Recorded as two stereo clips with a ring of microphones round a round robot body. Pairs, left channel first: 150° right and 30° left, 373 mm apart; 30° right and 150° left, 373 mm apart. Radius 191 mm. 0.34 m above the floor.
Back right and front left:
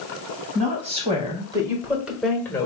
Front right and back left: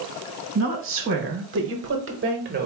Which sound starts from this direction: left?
A woman speaking, at 0.6 s.